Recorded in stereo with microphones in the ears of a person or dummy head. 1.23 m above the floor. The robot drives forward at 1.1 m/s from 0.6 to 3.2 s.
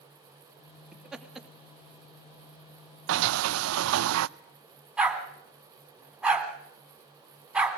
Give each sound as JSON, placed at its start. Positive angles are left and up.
{"t": 0.9, "sound": "laughter", "side_deg": 0, "distance_m": 3.0}
{"t": 3.1, "sound": "a sliding door", "side_deg": -65, "distance_m": 0.5}
{"t": 5.0, "sound": "a dog barking", "side_deg": -10, "distance_m": 2.5}